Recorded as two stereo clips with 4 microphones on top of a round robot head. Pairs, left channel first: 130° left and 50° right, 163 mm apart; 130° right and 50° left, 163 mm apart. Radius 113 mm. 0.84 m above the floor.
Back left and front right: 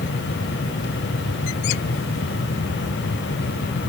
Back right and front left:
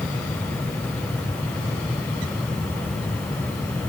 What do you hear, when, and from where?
Only background noise.